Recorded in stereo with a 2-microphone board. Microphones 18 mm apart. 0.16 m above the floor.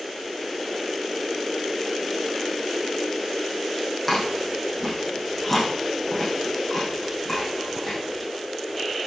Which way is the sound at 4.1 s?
10° left (ahead or behind).